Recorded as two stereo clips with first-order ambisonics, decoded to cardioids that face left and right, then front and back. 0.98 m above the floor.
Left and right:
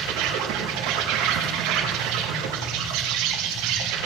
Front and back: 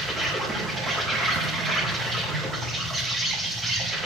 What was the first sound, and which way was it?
An insect, 105° right.